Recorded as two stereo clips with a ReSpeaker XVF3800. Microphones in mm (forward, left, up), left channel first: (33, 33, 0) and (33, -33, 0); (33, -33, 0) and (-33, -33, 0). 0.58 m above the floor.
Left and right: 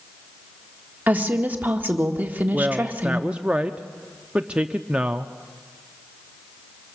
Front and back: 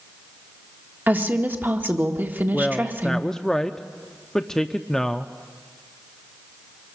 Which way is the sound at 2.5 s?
65° right.